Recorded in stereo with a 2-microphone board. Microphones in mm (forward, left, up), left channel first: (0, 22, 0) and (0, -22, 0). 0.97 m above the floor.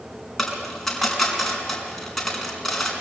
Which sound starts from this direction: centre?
A dropped coin, at 0.4 s.